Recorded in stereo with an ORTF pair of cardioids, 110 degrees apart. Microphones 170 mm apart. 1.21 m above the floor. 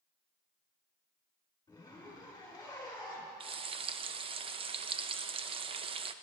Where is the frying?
35° right, 0.6 m.